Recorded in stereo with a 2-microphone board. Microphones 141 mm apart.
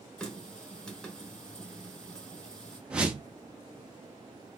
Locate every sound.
0.2 s a running tap: 5° left (ahead or behind), 1.0 m
2.9 s a whoosh: 10° right (ahead or behind), 0.7 m